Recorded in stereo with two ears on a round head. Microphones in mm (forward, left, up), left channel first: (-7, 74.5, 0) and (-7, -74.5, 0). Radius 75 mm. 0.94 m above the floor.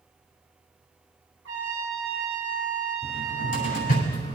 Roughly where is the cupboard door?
Left.